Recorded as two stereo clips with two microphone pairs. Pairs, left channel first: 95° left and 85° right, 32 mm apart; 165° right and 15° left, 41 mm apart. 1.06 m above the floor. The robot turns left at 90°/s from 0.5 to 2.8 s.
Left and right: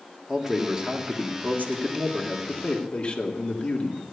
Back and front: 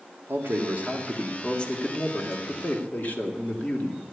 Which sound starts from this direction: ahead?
A man speaking, at 0.3 s.